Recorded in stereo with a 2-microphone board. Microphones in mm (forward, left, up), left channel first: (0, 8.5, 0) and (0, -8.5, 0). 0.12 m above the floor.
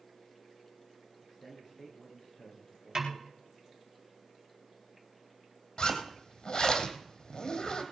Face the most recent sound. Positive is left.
turn(degrees=50)  # may be behind; listen again after turning